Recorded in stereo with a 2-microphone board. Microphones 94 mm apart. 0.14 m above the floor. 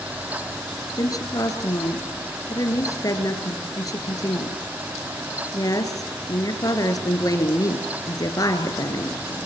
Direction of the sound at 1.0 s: 40° left (ahead or behind).